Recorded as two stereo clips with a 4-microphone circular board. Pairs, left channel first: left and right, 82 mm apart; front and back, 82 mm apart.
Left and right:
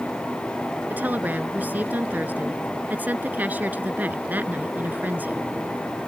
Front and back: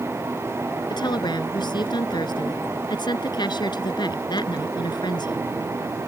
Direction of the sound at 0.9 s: 20° right.